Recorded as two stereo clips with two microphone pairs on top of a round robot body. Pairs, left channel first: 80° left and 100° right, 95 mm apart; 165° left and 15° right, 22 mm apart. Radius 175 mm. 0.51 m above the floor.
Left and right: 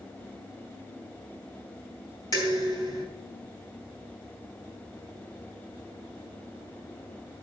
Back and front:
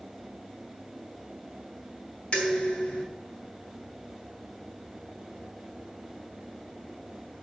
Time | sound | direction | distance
2.3 | dishes clattering | 130° left | 4.5 m